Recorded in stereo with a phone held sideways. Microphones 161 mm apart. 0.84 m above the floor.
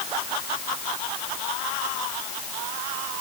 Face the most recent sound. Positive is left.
No sound to turn to.